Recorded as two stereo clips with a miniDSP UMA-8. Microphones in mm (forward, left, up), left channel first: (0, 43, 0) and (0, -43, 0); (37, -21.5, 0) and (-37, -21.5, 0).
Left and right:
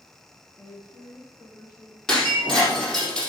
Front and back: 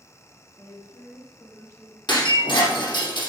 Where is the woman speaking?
30° left, 3 m; by 2.0 s 50° left, 3.5 m.